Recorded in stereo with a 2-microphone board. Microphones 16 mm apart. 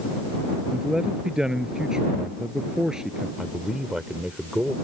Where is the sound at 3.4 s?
55° right (ahead or behind).